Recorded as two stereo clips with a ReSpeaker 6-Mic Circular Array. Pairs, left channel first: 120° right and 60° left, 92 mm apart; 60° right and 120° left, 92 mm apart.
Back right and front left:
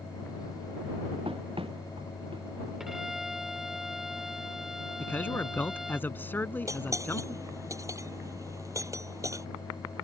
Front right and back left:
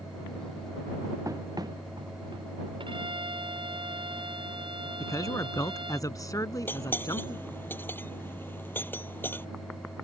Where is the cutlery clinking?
5° left.